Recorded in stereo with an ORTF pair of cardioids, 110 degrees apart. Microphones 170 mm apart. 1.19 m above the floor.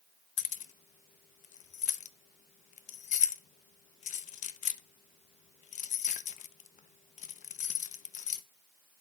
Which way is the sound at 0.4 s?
50° left.